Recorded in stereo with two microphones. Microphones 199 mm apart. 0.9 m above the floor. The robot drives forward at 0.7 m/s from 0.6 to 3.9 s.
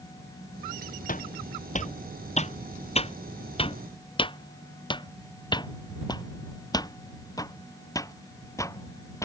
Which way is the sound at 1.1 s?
45° left (ahead or behind).